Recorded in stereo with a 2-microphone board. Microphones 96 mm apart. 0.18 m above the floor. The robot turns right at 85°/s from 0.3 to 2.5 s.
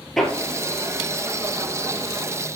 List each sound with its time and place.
0.2 s hammering: 5° left (ahead or behind), 1.2 m